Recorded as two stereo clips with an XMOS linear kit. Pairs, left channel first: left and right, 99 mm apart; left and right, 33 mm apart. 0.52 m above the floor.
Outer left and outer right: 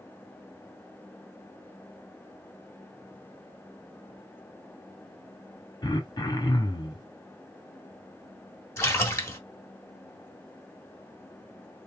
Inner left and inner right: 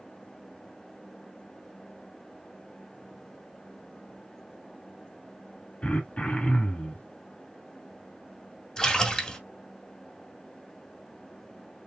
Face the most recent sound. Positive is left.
turn(degrees=25)  # may be behind; listen again after turning